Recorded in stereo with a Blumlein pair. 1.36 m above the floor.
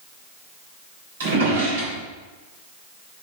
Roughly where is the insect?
No insect in this recording.